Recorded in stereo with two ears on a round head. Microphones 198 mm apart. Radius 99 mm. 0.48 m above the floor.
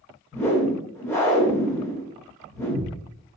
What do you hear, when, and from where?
0.3 s a whoosh: 10° left (ahead or behind), 0.9 m